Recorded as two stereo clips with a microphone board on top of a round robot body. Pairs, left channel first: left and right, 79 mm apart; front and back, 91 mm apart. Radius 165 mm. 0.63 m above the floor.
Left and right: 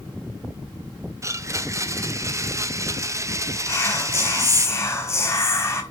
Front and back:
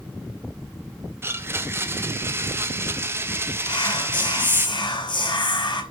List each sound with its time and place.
1.2 s a blender: 125° right, 1.6 m
3.7 s whispering: 35° left, 4.5 m